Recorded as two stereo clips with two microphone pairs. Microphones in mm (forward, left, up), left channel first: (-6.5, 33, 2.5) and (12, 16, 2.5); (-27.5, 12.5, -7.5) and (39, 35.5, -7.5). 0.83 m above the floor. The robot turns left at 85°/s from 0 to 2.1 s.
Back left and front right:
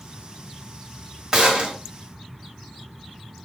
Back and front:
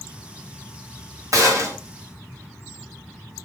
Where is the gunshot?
20° left, 1.3 m; by 1.8 s 20° right, 1.3 m.